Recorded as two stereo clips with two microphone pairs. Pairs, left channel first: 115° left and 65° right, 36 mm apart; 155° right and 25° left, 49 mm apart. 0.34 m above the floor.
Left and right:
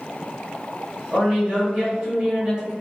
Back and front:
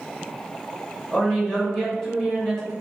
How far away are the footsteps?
I don't hear footsteps.